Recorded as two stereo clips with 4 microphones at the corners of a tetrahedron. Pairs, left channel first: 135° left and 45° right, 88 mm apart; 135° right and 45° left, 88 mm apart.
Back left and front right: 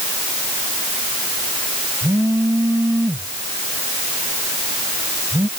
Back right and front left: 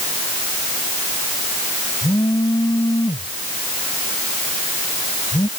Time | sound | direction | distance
2.0 | a phone buzzing | 100° right | ?